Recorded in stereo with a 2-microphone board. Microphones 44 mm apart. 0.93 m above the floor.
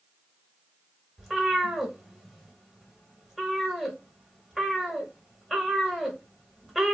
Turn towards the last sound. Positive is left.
turn(degrees=-5)  # may be behind; listen again after turning